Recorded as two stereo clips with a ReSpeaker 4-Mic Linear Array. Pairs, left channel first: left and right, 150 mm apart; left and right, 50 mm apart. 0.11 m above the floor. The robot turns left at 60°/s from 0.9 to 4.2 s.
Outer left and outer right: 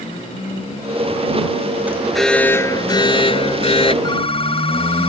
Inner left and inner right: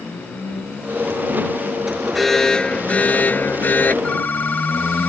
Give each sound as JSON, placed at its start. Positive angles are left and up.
{"t": 1.9, "sound": "an alarm", "azimuth_deg": -165}
{"t": 4.0, "sound": "a phone ringing", "side_deg": 30}